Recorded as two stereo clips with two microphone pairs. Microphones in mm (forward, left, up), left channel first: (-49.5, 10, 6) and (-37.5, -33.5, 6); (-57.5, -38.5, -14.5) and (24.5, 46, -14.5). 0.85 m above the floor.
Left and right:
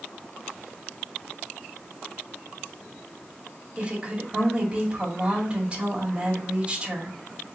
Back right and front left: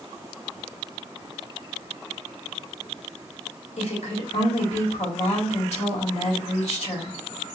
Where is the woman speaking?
140° right, 2.5 m.